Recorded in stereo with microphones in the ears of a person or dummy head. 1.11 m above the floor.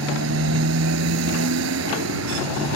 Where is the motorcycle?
70° right (ahead or behind).